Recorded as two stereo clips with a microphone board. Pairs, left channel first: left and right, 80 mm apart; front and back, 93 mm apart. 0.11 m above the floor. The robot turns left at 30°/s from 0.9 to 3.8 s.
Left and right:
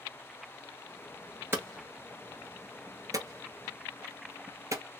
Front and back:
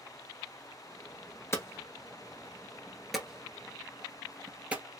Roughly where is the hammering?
Ahead right.